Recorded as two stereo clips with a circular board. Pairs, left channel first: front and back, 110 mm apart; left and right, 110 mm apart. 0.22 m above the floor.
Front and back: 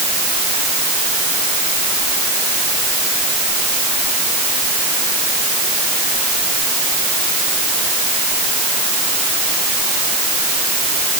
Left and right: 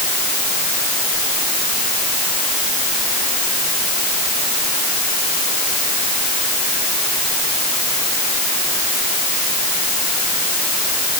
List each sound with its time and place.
Only background noise.